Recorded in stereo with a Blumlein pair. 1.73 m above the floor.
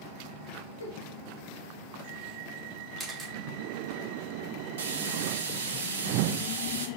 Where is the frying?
65° right, 1.0 m.